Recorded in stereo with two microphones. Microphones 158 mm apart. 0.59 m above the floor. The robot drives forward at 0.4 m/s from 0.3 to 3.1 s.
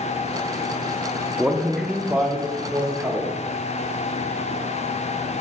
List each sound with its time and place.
1.4 s a man speaking: 5° right (ahead or behind), 0.8 m